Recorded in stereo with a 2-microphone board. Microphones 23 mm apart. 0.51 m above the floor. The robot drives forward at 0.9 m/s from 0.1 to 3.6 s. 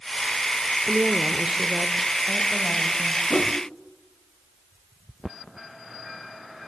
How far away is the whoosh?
About 0.9 m.